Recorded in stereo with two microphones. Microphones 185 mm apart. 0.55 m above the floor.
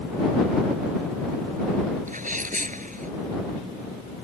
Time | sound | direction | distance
2.1 | a sneeze | 45° right (ahead or behind) | ?